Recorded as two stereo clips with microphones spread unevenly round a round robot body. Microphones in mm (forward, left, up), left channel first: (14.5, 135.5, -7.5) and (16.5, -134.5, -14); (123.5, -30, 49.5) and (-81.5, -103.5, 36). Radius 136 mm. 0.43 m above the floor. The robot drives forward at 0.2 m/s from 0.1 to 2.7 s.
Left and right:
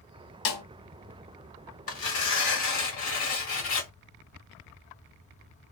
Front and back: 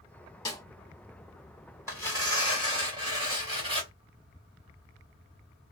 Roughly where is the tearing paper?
Behind left.